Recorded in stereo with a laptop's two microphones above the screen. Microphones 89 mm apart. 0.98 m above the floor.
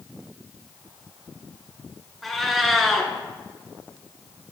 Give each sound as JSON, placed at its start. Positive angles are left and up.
{"t": 2.2, "sound": "a cat meowing", "side_deg": 0, "distance_m": 1.5}